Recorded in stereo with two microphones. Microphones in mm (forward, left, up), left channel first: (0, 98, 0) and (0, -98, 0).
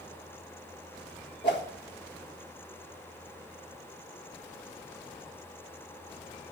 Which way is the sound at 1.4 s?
60° left (ahead or behind).